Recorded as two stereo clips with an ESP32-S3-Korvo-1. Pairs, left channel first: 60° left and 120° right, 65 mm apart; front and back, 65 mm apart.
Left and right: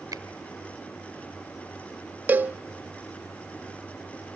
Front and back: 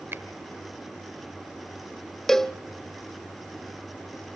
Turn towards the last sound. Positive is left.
turn(degrees=-80)